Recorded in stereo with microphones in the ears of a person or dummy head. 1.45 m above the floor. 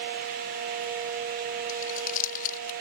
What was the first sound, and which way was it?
Crumpling, 45° left (ahead or behind).